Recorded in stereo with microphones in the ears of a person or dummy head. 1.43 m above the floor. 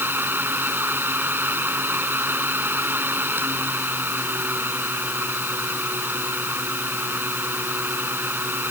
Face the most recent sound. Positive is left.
turn(degrees=-10)  # may be behind; listen again after turning